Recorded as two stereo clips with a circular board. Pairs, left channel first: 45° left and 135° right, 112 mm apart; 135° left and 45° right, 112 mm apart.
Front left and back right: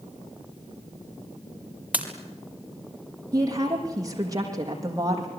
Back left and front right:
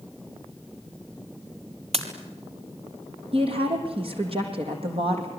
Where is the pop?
60° right, 3 m.